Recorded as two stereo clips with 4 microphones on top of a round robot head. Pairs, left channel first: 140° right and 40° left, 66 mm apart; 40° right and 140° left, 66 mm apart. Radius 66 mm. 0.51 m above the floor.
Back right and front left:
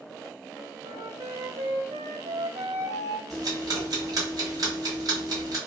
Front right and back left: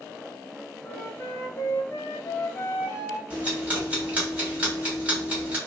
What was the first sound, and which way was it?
A flute, 25° left.